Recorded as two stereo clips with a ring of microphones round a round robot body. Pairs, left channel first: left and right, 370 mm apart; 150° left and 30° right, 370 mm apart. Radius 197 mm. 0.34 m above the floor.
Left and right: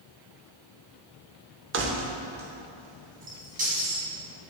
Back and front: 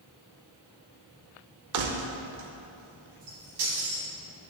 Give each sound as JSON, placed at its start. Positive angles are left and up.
{"t": 1.7, "sound": "keys jangling", "azimuth_deg": -45, "distance_m": 0.7}